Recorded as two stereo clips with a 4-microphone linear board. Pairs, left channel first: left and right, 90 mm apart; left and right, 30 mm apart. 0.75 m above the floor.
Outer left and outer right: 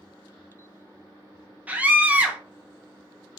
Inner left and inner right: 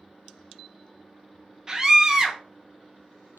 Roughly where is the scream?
Centre.